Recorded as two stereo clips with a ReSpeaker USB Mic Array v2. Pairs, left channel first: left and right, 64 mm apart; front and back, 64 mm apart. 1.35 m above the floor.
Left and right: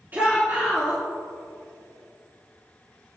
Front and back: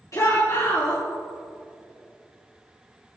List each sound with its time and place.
0.1 s a shout: 30° right, 3 m